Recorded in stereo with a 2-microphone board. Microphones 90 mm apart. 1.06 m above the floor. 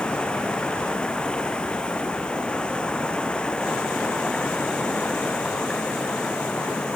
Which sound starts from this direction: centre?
Running water, at 0.0 s.